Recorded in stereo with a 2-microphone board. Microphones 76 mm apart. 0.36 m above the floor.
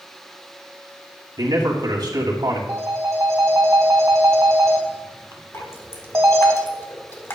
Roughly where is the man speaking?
Right.